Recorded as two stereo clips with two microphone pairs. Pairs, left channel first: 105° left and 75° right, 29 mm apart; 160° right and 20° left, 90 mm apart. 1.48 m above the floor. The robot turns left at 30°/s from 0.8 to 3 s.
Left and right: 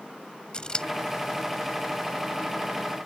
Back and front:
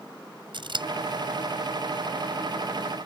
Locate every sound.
0.5 s scissors: 45° left